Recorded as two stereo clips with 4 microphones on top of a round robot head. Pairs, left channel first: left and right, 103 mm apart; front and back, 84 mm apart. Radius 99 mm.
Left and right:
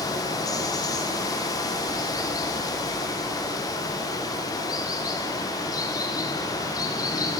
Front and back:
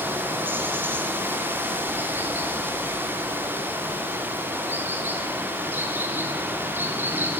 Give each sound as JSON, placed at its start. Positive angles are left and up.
{"t": 0.0, "sound": "running water", "azimuth_deg": 125, "distance_m": 0.8}